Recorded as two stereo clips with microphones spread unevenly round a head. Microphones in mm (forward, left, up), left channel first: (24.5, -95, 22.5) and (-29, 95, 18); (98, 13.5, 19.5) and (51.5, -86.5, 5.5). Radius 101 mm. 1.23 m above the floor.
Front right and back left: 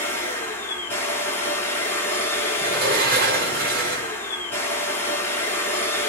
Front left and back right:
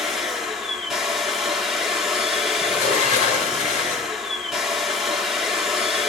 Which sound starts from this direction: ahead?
A machine running, at 0.0 s.